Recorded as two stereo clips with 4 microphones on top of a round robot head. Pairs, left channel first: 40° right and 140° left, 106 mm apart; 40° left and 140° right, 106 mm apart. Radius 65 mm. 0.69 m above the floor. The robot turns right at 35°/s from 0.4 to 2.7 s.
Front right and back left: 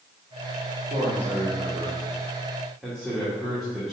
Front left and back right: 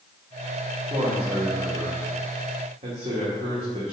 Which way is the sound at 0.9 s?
170° left.